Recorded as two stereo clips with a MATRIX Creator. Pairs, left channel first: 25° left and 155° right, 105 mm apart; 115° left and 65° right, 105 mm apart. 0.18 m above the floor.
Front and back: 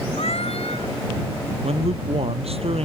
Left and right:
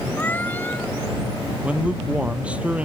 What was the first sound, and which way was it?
A cat meowing, 40° left.